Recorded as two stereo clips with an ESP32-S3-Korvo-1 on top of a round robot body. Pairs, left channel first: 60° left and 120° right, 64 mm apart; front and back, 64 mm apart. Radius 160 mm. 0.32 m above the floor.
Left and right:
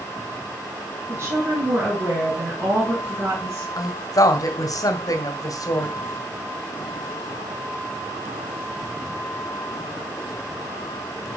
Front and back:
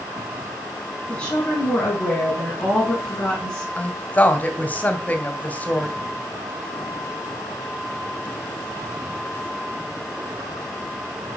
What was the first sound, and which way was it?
A woman speaking, 75° right.